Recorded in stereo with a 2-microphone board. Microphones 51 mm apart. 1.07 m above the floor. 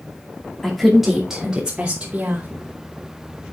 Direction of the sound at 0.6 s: 5° left (ahead or behind).